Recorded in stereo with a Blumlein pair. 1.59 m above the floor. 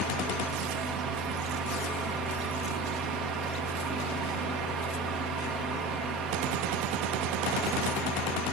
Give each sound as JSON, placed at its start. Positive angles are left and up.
{"t": 0.0, "sound": "a fan", "azimuth_deg": -30, "distance_m": 1.3}